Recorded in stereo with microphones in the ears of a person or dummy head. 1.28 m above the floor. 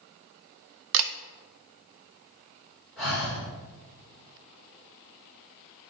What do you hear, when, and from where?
0.9 s a camera shutter: 75° right (ahead or behind), 0.6 m
3.0 s breathing: 5° left (ahead or behind), 3 m